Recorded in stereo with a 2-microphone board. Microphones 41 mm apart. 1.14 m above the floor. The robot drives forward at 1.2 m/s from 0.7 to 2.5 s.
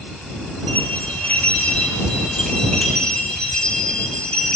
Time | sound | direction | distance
0.7 | a bell | 50° left (ahead or behind) | 1.3 m